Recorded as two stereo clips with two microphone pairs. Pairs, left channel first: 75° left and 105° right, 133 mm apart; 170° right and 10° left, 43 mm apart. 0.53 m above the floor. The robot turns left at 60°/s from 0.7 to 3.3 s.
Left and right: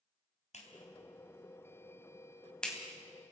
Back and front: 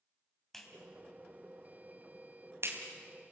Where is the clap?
105° left, 3.5 m; by 2.8 s 20° right, 3.5 m.